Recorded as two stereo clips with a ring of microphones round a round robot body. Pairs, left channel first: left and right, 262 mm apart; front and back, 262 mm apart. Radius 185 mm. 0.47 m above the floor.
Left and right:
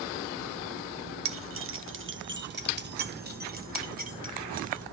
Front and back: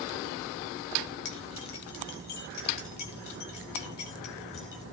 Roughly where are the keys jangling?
Ahead right.